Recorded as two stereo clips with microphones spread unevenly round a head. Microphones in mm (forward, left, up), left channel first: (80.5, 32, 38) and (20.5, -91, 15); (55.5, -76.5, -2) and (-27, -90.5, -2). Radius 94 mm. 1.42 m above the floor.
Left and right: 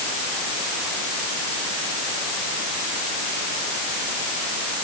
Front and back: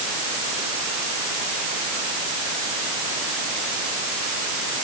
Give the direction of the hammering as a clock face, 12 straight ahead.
I don't hear hammering.